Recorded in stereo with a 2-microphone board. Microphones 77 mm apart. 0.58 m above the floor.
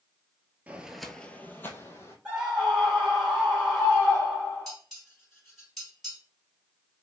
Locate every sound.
0.7 s footsteps: 20° right (ahead or behind), 0.6 m; by 2.1 s 35° left (ahead or behind), 1.2 m
2.2 s a scream: 15° right (ahead or behind), 2.5 m
4.7 s dishes clattering: centre (ahead or behind), 2 m